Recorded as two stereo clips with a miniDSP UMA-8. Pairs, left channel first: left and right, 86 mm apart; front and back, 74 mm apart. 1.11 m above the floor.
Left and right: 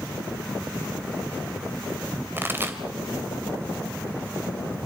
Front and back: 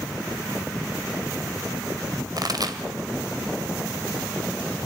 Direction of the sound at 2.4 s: 155° right.